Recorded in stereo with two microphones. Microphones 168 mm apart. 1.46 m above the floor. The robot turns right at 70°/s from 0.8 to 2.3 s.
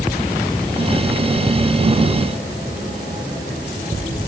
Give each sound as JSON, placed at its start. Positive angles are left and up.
{"t": 1.5, "sound": "ticking", "side_deg": 5, "distance_m": 0.8}